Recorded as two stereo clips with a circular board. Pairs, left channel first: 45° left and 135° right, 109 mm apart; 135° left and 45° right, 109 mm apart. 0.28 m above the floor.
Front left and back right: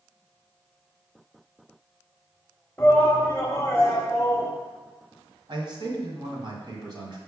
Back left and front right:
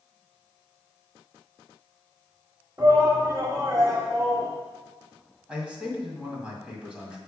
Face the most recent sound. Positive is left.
turn(degrees=-120)